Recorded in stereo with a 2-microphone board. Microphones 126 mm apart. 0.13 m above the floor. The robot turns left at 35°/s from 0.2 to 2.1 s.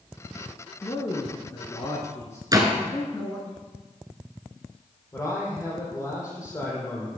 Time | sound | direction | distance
0.8 | a man speaking | 90° left | 1.4 m
2.5 | a door slam | 30° right (ahead or behind) | 1.5 m
5.1 | a man speaking | 25° left (ahead or behind) | 4.5 m